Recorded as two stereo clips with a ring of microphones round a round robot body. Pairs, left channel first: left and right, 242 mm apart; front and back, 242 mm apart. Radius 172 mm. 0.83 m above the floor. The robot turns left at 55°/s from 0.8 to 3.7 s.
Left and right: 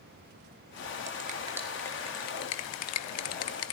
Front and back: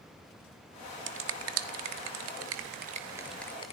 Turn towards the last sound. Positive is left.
turn(degrees=70)